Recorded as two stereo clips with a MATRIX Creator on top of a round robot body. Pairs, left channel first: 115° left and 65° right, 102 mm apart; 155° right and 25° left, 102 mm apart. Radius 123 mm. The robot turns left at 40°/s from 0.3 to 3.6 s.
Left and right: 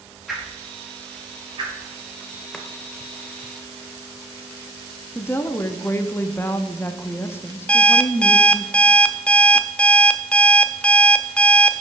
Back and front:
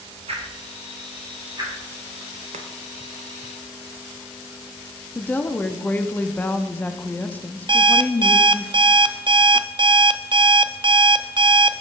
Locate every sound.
0.3 s a whoosh: 20° left, 2.5 m; by 1.7 s 35° right, 2.5 m
2.5 s chopping: 30° left, 0.7 m; by 2.7 s 25° left, 0.7 m
5.2 s a woman speaking: 150° left, 0.7 m
7.7 s an alarm clock: 35° left, 0.6 m